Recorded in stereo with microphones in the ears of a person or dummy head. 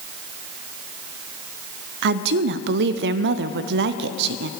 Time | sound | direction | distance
2.0 | a woman speaking | 60° right (ahead or behind) | 0.5 m